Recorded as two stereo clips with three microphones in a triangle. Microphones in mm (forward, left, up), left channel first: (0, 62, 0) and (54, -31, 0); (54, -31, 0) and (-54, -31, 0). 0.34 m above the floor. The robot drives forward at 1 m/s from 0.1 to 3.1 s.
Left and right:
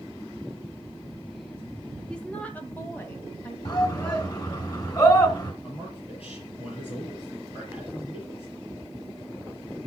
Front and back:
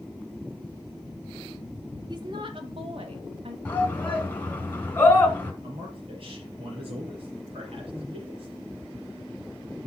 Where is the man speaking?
150° left, 6 m.